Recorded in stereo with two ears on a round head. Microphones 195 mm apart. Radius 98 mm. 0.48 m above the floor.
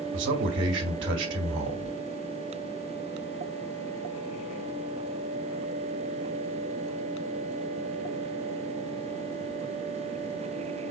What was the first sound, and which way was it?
A man speaking, 60° right (ahead or behind).